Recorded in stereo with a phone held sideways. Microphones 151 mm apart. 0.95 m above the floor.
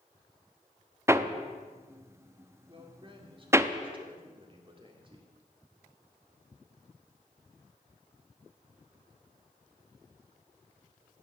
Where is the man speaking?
35° right (ahead or behind), 2 m.